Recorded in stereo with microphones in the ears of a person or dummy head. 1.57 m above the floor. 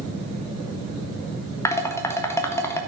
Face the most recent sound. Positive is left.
turn(degrees=15)  # may be behind; listen again after turning